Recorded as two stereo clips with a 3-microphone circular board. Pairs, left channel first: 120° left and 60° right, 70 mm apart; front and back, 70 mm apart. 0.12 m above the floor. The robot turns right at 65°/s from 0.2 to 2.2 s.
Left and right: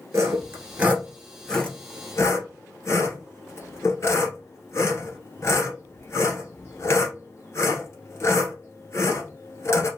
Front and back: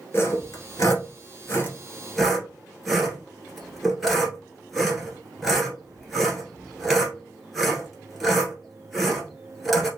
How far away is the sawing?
About 1.5 m.